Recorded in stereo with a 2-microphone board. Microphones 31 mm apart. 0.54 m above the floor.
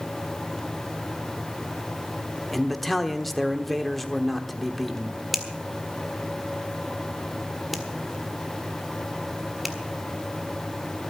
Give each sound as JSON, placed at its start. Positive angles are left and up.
{"t": 2.5, "sound": "a man speaking", "side_deg": 5, "distance_m": 1.1}
{"t": 5.3, "sound": "a finger snap", "side_deg": 0, "distance_m": 1.6}